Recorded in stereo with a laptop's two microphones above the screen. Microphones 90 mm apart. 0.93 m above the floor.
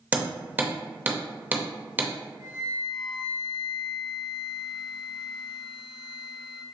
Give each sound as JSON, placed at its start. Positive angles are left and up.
{"t": 0.1, "sound": "hammering", "side_deg": -20, "distance_m": 0.7}
{"t": 2.4, "sound": "a flute", "side_deg": -70, "distance_m": 1.8}